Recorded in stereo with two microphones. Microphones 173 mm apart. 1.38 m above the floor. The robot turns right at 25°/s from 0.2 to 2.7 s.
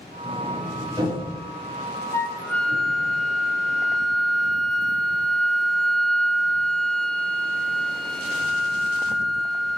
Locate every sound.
0.2 s a sliding door: 5° right (ahead or behind), 5 m; by 3.1 s 65° right (ahead or behind), 5 m
2.1 s a flute: 15° left (ahead or behind), 0.6 m; by 9.8 s 5° left (ahead or behind), 0.6 m